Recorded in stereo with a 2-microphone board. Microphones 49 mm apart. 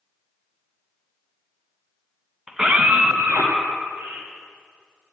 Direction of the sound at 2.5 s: 10° right (ahead or behind).